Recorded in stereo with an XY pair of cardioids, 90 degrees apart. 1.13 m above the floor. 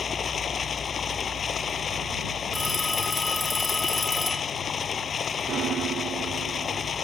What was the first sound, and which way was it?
Running water, 55° left.